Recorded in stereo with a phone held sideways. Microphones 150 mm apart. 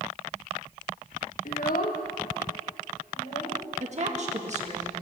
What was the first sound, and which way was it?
A child speaking, 65° left (ahead or behind).